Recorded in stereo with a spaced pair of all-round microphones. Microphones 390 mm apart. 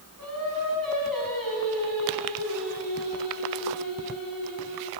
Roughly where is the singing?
Right.